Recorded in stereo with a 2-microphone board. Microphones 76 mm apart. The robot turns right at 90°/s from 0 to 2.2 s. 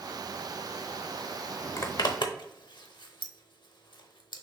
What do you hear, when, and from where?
1.8 s a zipper: 35° left (ahead or behind), 0.6 m; by 4.4 s 75° left (ahead or behind), 0.6 m